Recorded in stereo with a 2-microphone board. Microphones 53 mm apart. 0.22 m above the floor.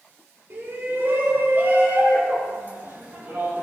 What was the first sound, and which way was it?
A shout, 45° right (ahead or behind).